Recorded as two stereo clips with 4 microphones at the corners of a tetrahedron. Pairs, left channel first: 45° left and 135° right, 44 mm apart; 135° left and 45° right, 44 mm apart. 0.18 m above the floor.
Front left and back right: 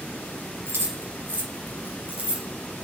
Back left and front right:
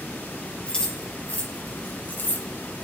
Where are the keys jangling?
160° right, 2.5 m; by 2.5 s 160° left, 1.8 m.